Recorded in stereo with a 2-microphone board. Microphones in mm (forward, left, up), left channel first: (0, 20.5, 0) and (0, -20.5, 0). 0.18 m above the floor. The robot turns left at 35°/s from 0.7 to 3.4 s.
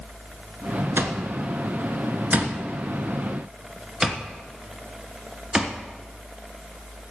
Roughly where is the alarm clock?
Right.